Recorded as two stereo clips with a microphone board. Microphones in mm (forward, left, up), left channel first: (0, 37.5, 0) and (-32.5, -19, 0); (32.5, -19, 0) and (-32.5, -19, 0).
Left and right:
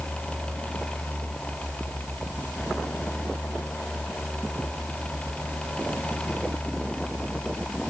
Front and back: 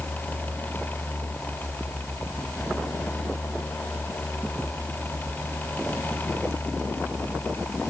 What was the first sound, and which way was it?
Only background noise.